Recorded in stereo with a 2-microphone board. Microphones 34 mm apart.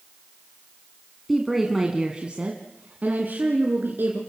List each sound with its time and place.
1.3 s a woman speaking: 5° left (ahead or behind), 2 m; by 4.2 s 70° right (ahead or behind), 3.5 m